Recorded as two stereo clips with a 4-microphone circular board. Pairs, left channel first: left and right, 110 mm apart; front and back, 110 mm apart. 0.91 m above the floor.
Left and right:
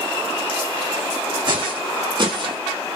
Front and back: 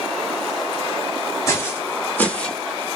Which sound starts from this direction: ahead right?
Footsteps, at 1.5 s.